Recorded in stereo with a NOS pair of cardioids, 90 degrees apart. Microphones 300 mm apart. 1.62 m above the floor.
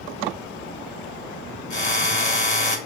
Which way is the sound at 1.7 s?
25° left.